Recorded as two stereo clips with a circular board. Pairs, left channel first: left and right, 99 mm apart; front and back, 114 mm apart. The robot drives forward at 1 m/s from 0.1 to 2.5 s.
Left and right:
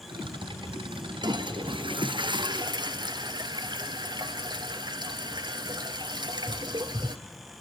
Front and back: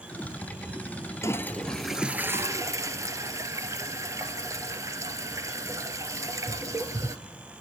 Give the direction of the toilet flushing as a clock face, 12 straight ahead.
2 o'clock.